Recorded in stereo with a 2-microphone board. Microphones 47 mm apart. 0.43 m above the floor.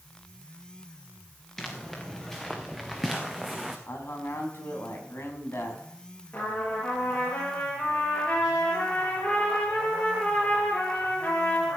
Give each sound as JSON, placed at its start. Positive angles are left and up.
{"t": 1.6, "sound": "footsteps", "side_deg": 10, "distance_m": 3.0}
{"t": 3.9, "sound": "a man speaking", "side_deg": 60, "distance_m": 3.0}
{"t": 6.3, "sound": "a trumpet", "side_deg": 40, "distance_m": 7.0}